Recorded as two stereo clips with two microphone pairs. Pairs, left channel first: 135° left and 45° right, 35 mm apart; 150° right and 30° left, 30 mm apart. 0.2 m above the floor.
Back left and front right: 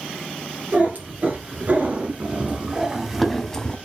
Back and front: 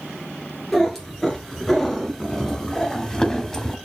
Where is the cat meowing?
75° right, 2 m; by 3.8 s 150° left, 0.7 m.